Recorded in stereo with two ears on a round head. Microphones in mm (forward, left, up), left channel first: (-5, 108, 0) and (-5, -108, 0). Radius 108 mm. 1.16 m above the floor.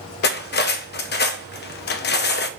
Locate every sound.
0.2 s cutlery clinking: 45° left (ahead or behind), 0.7 m